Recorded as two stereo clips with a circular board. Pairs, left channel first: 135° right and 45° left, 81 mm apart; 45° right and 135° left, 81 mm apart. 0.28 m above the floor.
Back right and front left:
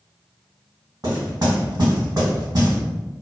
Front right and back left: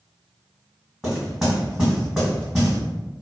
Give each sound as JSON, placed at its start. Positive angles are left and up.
{"t": 1.0, "sound": "knocking", "azimuth_deg": 45, "distance_m": 1.8}